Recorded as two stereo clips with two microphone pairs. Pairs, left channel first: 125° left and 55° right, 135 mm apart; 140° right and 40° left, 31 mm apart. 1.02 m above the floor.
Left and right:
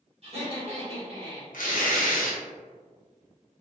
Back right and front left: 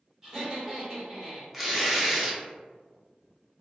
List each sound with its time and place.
0.2 s laughter: 35° right, 1.3 m
1.5 s tearing paper: 125° left, 0.6 m